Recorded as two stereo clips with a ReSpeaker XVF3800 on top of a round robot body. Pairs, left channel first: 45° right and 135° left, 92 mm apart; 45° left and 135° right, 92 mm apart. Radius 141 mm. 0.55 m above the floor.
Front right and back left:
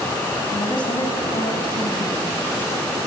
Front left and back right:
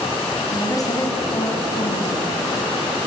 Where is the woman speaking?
5° right, 5 m; by 2.3 s 10° right, 6.5 m.